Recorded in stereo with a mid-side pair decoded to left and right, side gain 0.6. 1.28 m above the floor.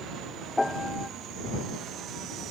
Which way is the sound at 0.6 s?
10° left.